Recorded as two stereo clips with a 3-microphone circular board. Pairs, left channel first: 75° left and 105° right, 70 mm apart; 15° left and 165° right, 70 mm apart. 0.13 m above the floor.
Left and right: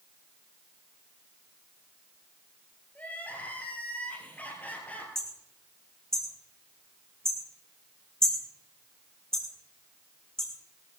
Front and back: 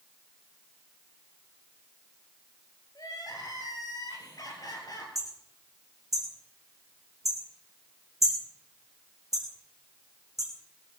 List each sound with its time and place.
3.0 s crying: 10° left, 3.5 m
5.2 s hammering: 155° left, 4 m